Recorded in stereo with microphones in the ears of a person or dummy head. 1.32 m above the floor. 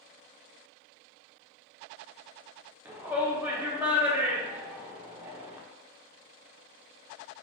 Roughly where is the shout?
Centre.